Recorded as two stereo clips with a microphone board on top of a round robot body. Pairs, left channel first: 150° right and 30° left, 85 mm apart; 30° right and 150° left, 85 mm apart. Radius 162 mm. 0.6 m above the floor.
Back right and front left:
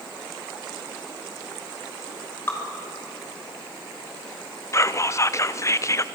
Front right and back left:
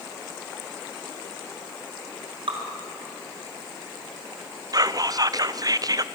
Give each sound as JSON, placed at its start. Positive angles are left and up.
{"t": 2.5, "sound": "dripping", "azimuth_deg": 145, "distance_m": 3.0}
{"t": 4.7, "sound": "whispering", "azimuth_deg": 170, "distance_m": 0.9}